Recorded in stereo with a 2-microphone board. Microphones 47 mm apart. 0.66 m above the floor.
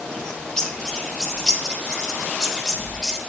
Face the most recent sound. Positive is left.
turn(degrees=15)  # may be behind; listen again after turning